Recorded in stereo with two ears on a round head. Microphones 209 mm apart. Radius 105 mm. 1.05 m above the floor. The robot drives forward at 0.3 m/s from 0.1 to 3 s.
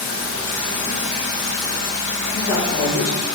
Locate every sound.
0.0 s running water: 20° left (ahead or behind), 1.5 m; by 3.4 s 15° left (ahead or behind), 2 m
2.3 s a woman speaking: 55° left (ahead or behind), 2.0 m; by 3.3 s 50° left (ahead or behind), 2 m